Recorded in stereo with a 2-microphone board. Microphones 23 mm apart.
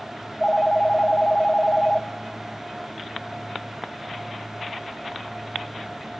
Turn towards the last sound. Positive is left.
turn(degrees=40)  # may be behind; listen again after turning